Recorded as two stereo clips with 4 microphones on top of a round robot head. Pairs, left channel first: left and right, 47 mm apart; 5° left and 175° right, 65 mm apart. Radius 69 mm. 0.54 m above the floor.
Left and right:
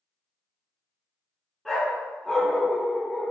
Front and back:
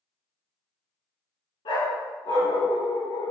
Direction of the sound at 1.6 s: 5° right.